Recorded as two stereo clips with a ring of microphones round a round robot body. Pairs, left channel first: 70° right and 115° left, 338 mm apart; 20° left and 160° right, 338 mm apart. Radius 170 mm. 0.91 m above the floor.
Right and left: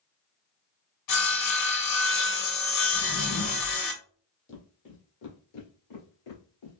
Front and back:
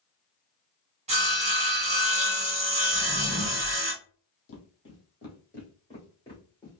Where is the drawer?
85° right, 0.7 m.